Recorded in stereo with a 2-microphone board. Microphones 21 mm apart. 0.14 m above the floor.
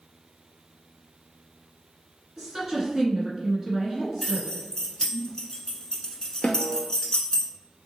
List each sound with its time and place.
2.4 s a woman speaking: 30° right (ahead or behind), 1.4 m
4.2 s keys jangling: 30° left (ahead or behind), 1.0 m
6.4 s a snare drum: 65° left (ahead or behind), 0.6 m